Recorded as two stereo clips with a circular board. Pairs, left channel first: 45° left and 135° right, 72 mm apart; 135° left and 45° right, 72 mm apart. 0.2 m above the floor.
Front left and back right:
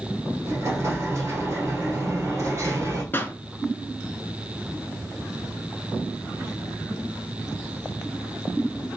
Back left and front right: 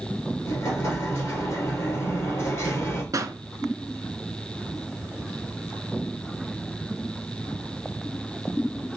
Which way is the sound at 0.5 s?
Straight behind.